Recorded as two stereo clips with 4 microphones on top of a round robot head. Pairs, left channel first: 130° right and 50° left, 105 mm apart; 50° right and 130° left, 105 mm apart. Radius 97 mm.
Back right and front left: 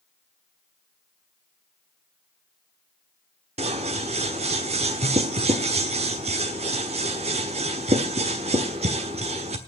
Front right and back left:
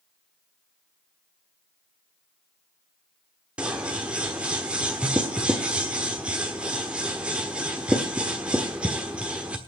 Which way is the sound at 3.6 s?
50° left.